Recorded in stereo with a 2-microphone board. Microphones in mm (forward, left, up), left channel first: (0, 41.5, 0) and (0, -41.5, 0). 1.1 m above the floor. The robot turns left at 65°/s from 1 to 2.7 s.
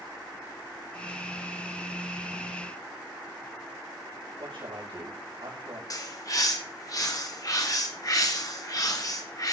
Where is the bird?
45° left (ahead or behind), 1.7 m.